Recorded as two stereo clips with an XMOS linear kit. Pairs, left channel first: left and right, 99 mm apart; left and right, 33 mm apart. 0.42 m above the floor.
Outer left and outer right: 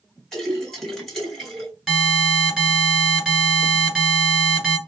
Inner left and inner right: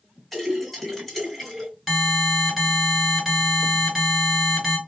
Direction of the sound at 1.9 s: Centre (ahead or behind).